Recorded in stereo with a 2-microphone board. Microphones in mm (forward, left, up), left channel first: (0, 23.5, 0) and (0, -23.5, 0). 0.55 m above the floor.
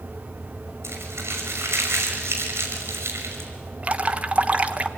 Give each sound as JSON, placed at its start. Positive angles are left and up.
{"t": 0.8, "sound": "crumpling", "side_deg": -60, "distance_m": 6.0}
{"t": 3.8, "sound": "dripping", "side_deg": -30, "distance_m": 1.3}